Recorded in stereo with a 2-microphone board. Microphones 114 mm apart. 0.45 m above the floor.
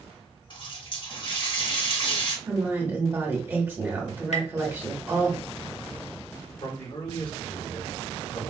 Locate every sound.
0.5 s a running tap: 45° left (ahead or behind), 1.0 m
2.5 s a woman speaking: 20° right (ahead or behind), 1.3 m
4.3 s tapping: 70° left (ahead or behind), 0.8 m
6.6 s a man speaking: 50° left (ahead or behind), 2.0 m